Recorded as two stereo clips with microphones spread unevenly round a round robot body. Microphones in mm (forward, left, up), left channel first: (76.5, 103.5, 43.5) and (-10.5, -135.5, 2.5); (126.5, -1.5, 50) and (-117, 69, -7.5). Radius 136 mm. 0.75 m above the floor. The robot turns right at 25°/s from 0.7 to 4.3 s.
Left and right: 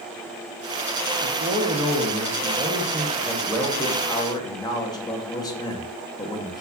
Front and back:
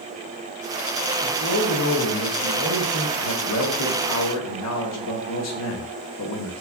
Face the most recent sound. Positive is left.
turn(degrees=-10)